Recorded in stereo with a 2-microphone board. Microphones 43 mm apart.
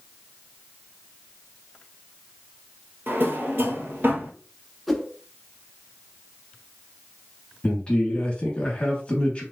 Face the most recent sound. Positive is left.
turn(degrees=25)  # may be behind; listen again after turning